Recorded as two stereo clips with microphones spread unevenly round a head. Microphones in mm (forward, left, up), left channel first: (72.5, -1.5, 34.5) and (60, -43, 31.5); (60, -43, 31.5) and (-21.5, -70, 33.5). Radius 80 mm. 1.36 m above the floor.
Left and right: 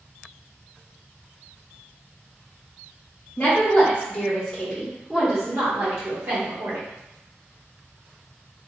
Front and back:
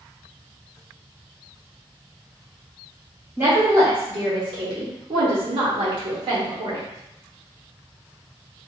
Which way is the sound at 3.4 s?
130° left.